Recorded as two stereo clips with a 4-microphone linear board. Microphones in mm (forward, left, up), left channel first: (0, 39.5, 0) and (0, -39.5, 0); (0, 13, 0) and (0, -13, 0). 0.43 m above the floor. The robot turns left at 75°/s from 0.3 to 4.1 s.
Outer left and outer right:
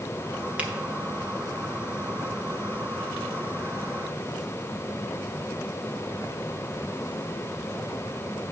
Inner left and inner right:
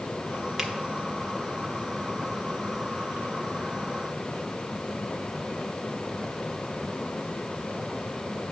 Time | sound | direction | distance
0.6 | a finger snap | 15° right (ahead or behind) | 1.1 m